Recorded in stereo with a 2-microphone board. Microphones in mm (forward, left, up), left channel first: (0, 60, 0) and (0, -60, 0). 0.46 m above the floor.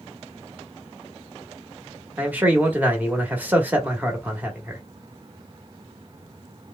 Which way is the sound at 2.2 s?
15° right (ahead or behind).